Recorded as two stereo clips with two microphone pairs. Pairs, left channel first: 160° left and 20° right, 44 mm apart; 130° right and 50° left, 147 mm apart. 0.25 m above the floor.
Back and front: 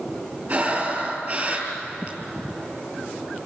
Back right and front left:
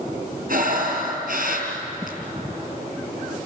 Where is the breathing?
30° left, 4.5 m.